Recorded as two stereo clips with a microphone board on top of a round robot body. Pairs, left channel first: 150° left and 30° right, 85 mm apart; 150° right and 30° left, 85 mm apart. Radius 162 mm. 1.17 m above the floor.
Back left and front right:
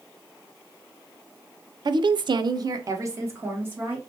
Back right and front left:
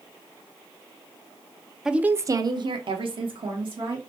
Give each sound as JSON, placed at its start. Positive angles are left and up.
{"t": 1.9, "sound": "a woman speaking", "azimuth_deg": -55, "distance_m": 0.6}